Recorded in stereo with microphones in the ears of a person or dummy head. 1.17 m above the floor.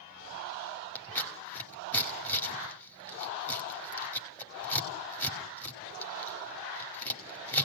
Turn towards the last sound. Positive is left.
turn(degrees=10)  # may be behind; listen again after turning